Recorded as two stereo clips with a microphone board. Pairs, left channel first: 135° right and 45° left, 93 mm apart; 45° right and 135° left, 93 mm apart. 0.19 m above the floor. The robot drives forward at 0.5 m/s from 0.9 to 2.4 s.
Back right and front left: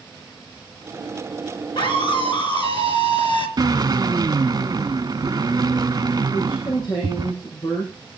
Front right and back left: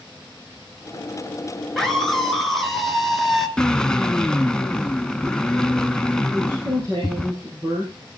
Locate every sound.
1.8 s a scream: 130° right, 3 m; by 3.5 s 135° right, 3.5 m
3.6 s a drill: 35° left, 0.8 m
6.3 s a woman speaking: 170° right, 6 m